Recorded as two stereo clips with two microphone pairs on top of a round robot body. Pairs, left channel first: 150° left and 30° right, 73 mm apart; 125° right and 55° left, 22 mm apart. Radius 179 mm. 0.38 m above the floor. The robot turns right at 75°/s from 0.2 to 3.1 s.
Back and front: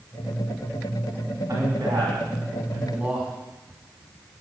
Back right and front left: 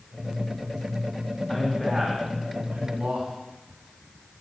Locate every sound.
1.5 s a man speaking: 75° right, 2.5 m; by 3.3 s 45° left, 2.5 m